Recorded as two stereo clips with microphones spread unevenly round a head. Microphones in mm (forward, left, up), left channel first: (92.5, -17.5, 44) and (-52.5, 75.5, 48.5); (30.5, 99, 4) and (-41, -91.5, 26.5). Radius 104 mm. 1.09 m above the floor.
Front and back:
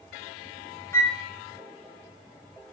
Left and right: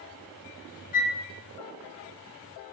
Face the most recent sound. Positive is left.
turn(degrees=40)